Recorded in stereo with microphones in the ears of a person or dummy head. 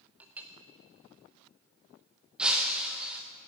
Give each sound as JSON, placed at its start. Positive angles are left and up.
{"t": 0.2, "sound": "a clink", "side_deg": -5, "distance_m": 0.5}
{"t": 2.4, "sound": "breaking glass", "side_deg": -5, "distance_m": 0.6}